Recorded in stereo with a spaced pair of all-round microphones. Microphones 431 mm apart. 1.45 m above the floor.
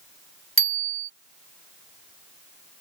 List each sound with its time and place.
0.6 s a bicycle bell: 30° right (ahead or behind)